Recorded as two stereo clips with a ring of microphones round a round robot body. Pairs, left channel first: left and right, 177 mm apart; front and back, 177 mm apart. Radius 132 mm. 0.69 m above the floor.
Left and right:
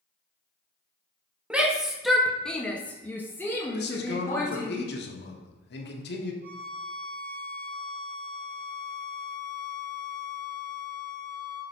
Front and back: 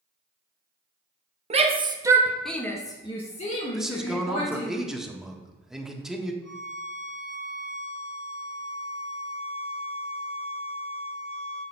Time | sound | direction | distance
1.5 | a shout | 170° right | 1.1 m
3.7 | a man speaking | 95° left | 1.5 m
6.4 | a violin | 80° right | 4 m